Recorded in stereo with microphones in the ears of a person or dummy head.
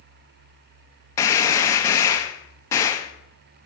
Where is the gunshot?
15° left (ahead or behind), 0.8 m.